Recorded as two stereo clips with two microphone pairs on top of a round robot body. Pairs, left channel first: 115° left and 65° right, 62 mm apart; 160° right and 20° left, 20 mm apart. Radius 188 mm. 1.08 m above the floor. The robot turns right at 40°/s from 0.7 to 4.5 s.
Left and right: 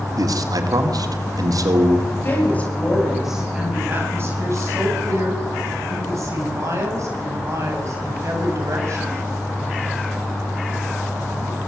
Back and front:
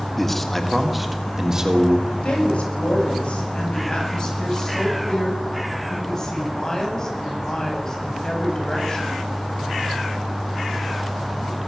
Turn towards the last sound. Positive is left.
turn(degrees=-100)